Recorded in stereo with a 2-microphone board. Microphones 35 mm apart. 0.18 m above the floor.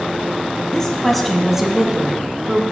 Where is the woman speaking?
20° left (ahead or behind), 1.1 m; by 2.6 s 30° right (ahead or behind), 1.7 m.